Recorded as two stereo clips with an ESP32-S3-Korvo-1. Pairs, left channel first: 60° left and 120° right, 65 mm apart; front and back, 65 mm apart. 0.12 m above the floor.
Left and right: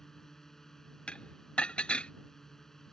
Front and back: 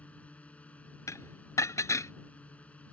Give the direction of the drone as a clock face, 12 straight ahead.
12 o'clock.